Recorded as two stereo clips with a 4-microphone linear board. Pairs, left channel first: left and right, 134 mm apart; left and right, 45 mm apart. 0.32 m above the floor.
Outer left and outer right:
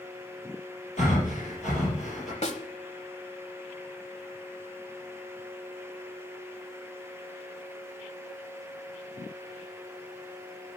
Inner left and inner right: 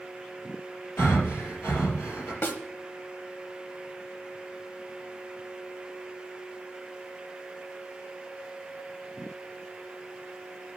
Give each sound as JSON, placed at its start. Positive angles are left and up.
{"t": 1.0, "sound": "breathing", "side_deg": 60, "distance_m": 4.5}
{"t": 2.4, "sound": "a snare drum", "side_deg": 55, "distance_m": 1.0}